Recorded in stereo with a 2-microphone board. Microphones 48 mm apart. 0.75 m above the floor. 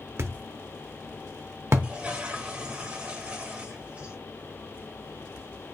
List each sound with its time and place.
0.2 s a thud: 60° right (ahead or behind), 0.7 m
1.8 s a toilet flushing: 25° right (ahead or behind), 1.1 m